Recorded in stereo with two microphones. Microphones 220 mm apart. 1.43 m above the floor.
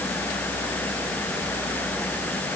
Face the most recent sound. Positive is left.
No sound to turn to.